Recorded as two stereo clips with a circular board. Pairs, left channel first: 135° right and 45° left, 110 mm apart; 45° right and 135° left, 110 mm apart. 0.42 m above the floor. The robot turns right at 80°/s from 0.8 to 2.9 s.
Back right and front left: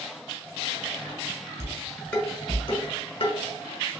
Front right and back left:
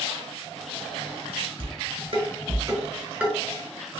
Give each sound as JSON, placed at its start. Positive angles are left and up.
{"t": 1.6, "sound": "dishes clattering", "azimuth_deg": 100, "distance_m": 1.3}